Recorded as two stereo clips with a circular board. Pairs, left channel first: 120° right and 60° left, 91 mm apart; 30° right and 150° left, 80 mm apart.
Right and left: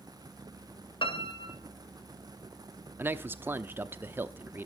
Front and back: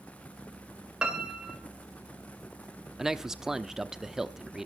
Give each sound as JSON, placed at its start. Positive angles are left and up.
{"t": 1.0, "sound": "a piano", "azimuth_deg": -130, "distance_m": 2.5}
{"t": 3.0, "sound": "a man speaking", "azimuth_deg": 75, "distance_m": 0.9}